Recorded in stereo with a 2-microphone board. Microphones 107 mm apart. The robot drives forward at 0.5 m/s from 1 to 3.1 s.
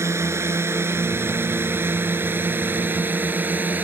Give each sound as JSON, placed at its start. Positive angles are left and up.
{"t": 0.0, "sound": "a drone", "side_deg": -25}